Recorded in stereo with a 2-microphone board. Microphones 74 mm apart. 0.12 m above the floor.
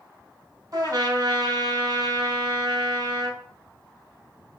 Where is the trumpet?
50° right (ahead or behind), 1.4 m.